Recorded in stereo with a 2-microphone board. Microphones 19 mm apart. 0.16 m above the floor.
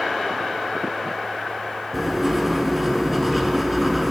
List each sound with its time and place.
1.9 s writing: 5° right (ahead or behind), 1.3 m